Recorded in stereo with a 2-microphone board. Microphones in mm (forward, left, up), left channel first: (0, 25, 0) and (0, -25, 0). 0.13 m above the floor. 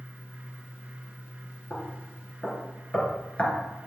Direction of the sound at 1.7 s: 30° left (ahead or behind).